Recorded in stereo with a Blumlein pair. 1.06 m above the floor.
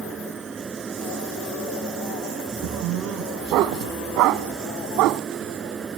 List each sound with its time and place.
0.0 s a fan: 15° right
2.6 s a dog barking: 40° right